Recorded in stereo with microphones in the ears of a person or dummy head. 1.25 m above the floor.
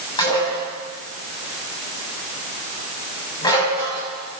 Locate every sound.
0.2 s dishes clattering: 20° left (ahead or behind), 6.5 m